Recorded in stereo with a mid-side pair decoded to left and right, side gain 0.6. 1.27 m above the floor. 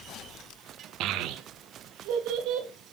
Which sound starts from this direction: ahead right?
A child speaking, at 1.0 s.